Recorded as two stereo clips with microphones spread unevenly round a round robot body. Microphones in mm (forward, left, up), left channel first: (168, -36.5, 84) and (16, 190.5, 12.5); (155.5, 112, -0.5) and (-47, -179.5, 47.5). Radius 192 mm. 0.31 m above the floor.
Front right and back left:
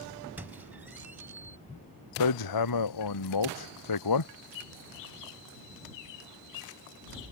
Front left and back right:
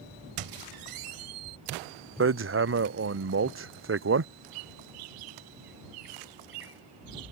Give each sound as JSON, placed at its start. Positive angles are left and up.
{"t": 0.4, "sound": "a squeak", "azimuth_deg": -160}
{"t": 2.2, "sound": "hammering", "azimuth_deg": -70}
{"t": 4.5, "sound": "a bird", "azimuth_deg": -100}